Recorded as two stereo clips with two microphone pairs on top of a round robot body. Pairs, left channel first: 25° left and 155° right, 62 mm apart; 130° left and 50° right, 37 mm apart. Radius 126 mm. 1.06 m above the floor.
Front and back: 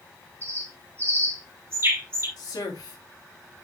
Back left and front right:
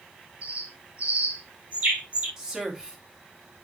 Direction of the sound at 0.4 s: 105° right.